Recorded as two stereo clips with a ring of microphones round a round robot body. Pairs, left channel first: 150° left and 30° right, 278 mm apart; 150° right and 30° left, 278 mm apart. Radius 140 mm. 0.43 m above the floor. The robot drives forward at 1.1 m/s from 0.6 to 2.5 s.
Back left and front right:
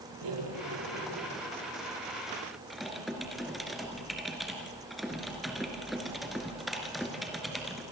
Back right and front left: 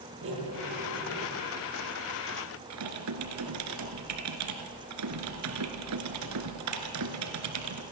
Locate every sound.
0.2 s cutlery clinking: 15° right, 7.5 m; by 1.3 s 20° right, 7 m
2.7 s typing on a keyboard: 60° left, 2 m